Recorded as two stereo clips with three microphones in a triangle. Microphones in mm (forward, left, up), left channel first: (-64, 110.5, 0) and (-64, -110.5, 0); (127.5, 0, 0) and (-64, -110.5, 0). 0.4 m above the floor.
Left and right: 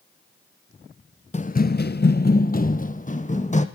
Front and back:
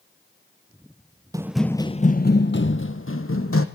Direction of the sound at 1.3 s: 145° left.